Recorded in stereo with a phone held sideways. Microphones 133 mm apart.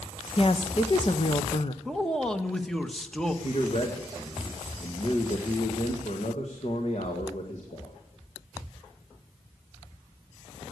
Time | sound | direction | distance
0.4 | a woman speaking | 45° left (ahead or behind) | 1.1 m
1.9 | a man speaking | 5° left (ahead or behind) | 1.2 m
3.4 | a man speaking | 55° left (ahead or behind) | 1.9 m